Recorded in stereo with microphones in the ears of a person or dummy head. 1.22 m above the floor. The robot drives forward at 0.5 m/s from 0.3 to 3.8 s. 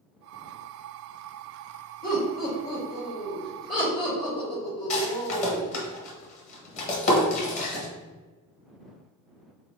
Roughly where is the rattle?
Left.